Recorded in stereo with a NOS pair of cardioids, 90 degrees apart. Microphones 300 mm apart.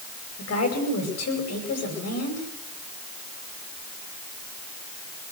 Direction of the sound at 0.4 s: 55° left.